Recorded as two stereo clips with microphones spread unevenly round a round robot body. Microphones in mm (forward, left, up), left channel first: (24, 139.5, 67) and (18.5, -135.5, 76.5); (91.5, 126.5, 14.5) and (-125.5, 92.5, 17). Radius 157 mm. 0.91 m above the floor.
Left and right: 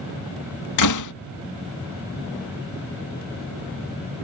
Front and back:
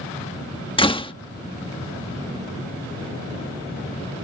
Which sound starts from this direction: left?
A door slam, at 0.8 s.